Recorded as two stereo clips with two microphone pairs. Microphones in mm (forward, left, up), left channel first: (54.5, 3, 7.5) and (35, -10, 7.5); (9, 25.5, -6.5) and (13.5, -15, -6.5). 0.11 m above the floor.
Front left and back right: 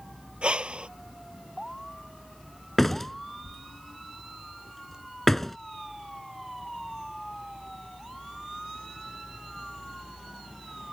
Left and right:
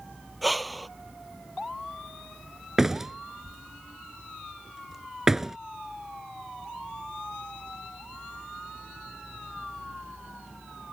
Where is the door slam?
20° right.